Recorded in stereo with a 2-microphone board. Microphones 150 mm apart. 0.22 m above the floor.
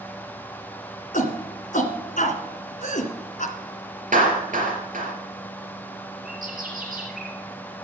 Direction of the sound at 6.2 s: 70° right (ahead or behind).